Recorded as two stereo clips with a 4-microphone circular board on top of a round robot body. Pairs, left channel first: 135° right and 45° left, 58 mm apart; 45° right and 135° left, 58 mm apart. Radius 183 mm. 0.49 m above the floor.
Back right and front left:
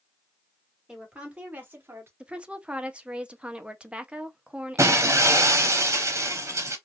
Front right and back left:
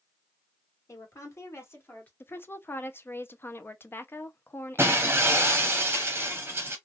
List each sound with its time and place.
0.9 s a woman speaking: 30° right, 1.8 m; by 2.1 s 5° left, 1.6 m
2.2 s a woman speaking: 20° right, 0.9 m
4.8 s breaking glass: 80° left, 0.7 m